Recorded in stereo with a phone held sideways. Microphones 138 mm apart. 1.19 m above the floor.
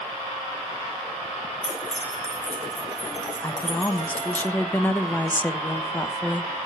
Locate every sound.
1.6 s keys jangling: 65° left (ahead or behind), 5.5 m; by 4.4 s 40° left (ahead or behind), 6 m
3.4 s a woman speaking: 10° left (ahead or behind), 0.9 m